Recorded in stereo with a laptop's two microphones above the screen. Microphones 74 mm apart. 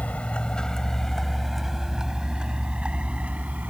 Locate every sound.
0.0 s a vehicle: 20° left (ahead or behind); by 3.7 s 20° right (ahead or behind)